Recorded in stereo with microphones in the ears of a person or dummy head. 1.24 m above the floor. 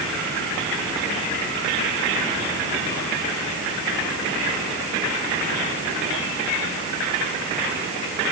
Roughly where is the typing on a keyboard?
I don't hear typing on a keyboard.